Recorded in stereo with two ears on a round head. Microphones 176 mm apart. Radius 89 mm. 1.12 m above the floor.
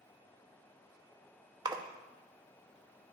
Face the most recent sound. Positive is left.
turn(degrees=-20)  # may be behind; listen again after turning